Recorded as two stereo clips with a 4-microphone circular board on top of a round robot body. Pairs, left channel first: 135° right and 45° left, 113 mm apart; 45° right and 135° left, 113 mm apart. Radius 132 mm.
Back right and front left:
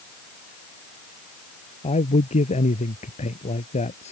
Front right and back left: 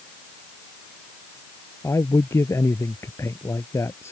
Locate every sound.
1.8 s a man speaking: 115° right